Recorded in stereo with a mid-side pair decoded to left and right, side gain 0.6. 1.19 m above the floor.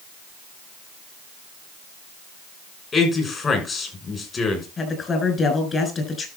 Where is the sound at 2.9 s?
30° left, 6.5 m.